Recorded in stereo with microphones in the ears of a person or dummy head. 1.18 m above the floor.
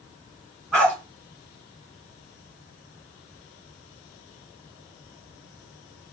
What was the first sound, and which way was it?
A dog barking, 5° left (ahead or behind).